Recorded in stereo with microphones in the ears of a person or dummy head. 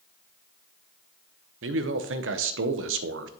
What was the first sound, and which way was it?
A man speaking, 60° right (ahead or behind).